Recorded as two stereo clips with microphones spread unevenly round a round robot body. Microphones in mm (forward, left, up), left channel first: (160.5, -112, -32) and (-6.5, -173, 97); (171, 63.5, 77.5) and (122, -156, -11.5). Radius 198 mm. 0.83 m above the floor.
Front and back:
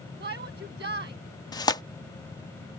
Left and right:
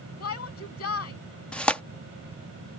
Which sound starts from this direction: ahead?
Tearing paper, at 1.5 s.